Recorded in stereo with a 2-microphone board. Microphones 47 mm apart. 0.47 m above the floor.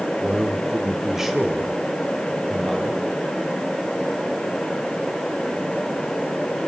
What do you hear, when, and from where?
0.2 s a man speaking: 15° right (ahead or behind), 1.3 m; by 3.1 s 5° right (ahead or behind), 3.5 m